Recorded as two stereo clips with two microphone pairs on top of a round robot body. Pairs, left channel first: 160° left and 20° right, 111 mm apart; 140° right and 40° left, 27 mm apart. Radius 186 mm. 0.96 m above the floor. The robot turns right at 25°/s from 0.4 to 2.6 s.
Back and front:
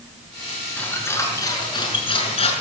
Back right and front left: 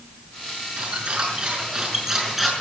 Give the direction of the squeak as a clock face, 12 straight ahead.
9 o'clock.